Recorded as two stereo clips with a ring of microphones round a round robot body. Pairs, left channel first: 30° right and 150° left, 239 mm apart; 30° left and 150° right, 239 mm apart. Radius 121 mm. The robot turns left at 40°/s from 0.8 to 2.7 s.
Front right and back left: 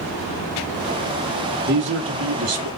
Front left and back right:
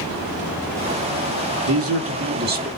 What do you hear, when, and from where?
1.6 s a man speaking: 165° right, 1.2 m; by 2.7 s 155° left, 1.2 m